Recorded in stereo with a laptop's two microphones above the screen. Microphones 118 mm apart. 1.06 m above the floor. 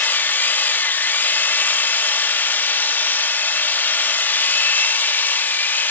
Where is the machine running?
15° left (ahead or behind), 1.3 m.